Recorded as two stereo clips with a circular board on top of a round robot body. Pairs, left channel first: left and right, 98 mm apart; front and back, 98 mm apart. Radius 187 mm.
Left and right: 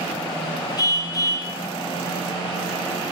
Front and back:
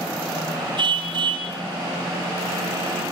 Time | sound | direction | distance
0.8 | a car horn | 140° left | 6 m